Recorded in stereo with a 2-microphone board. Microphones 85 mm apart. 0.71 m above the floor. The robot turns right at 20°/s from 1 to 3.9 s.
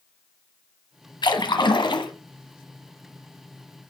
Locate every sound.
1.2 s a splash: 65° left (ahead or behind), 1.2 m; by 2.1 s 70° left (ahead or behind), 1.2 m